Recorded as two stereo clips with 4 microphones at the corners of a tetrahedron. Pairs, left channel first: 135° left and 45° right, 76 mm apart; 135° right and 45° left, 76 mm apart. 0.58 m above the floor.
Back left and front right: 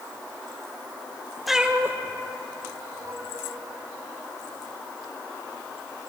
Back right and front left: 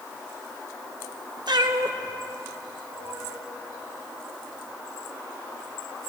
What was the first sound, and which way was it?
A cat meowing, 45° left.